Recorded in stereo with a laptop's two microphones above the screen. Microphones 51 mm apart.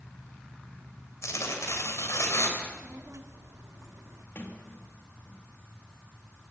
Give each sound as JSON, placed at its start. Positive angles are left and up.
{"t": 1.2, "sound": "tearing paper", "side_deg": 70, "distance_m": 3.0}
{"t": 2.6, "sound": "a child speaking", "side_deg": -65, "distance_m": 1.7}
{"t": 4.3, "sound": "a sliding door", "side_deg": 45, "distance_m": 2.0}